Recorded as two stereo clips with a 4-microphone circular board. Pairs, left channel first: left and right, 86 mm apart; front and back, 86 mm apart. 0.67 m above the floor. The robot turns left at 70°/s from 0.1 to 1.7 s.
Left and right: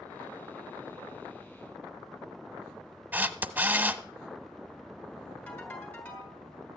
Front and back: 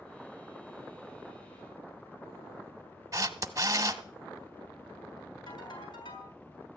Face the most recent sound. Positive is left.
turn(degrees=20)